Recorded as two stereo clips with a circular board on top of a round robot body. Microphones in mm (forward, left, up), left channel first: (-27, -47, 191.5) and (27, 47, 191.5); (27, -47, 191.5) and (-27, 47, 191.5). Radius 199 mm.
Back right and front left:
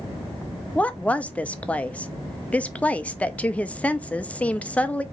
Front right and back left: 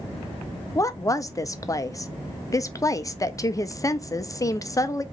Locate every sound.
0.8 s a woman speaking: 55° right, 0.8 m